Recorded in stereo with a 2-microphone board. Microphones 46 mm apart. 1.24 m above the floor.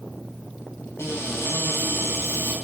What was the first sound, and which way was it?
A cupboard door, 70° left (ahead or behind).